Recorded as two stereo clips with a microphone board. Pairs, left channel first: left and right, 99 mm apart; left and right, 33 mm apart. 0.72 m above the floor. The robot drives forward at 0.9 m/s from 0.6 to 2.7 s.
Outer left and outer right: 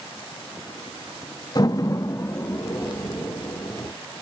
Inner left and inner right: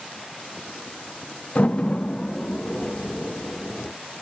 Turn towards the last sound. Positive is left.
turn(degrees=15)  # may be behind; listen again after turning